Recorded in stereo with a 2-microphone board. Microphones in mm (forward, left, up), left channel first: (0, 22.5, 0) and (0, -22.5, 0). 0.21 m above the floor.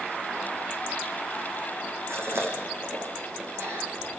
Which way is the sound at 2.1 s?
70° right (ahead or behind).